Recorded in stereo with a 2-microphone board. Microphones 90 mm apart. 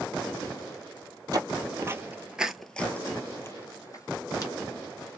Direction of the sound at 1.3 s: 45° right (ahead or behind).